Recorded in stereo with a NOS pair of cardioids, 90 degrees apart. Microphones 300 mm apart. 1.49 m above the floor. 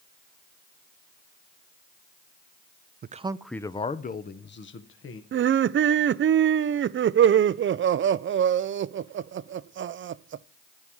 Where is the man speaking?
35° right, 0.5 m; by 5.2 s 45° left, 1.6 m.